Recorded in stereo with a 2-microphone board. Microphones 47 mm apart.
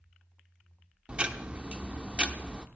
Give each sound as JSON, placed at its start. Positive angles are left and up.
{"t": 1.1, "sound": "ticking", "side_deg": -25, "distance_m": 0.8}